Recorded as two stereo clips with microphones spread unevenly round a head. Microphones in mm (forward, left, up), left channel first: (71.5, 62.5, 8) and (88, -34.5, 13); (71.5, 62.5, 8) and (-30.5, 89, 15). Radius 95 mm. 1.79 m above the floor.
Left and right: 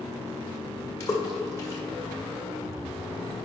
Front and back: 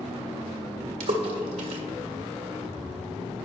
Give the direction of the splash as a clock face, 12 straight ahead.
6 o'clock.